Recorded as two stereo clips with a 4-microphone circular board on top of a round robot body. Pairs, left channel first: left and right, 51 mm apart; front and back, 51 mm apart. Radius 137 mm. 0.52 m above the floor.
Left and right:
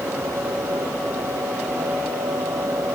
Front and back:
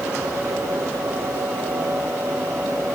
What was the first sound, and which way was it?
Only background noise.